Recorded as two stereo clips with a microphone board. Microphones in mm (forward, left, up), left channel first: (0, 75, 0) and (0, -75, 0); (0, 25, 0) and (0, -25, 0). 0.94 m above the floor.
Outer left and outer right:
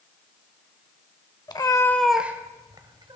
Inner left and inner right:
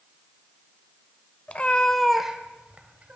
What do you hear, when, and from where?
1.5 s a cat meowing: 30° left (ahead or behind), 0.8 m; by 3.2 s 35° right (ahead or behind), 1.2 m